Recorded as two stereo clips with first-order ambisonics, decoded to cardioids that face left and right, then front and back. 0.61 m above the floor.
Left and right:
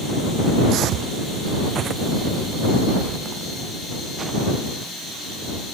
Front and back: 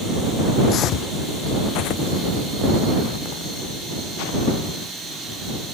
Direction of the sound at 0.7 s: 50° right.